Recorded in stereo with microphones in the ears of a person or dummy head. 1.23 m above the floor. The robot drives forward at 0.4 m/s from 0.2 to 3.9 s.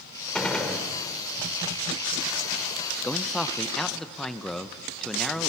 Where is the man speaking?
5° left (ahead or behind), 0.6 m.